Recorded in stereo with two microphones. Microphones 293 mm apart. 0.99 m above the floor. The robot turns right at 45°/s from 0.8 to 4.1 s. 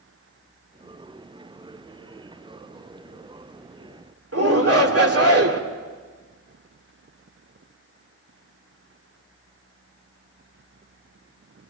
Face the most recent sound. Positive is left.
turn(degrees=-55)  # may be behind; listen again after turning